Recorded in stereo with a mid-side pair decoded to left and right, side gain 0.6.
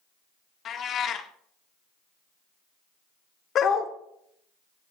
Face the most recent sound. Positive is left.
turn(degrees=45)